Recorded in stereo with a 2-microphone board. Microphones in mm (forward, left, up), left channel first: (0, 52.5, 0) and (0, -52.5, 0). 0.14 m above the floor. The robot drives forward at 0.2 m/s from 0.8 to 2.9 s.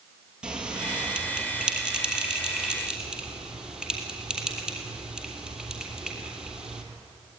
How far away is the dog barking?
No dog barking in this recording.